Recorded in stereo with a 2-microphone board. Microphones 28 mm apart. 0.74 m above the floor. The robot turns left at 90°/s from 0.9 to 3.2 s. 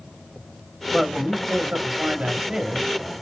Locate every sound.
0.9 s a man speaking: 20° right, 1.1 m; by 2.9 s 165° left, 1.1 m